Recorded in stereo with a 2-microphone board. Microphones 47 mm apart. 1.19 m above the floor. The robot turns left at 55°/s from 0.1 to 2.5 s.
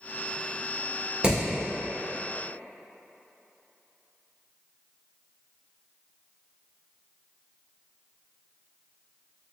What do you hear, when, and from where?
1.2 s hammering: 20° right (ahead or behind), 1.6 m; by 1.4 s 15° right (ahead or behind), 1.6 m